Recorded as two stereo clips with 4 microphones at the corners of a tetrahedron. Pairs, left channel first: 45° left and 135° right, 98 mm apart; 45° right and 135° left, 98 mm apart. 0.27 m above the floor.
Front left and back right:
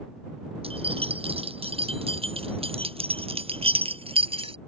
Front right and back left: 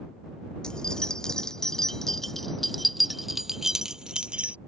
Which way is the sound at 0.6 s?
125° right.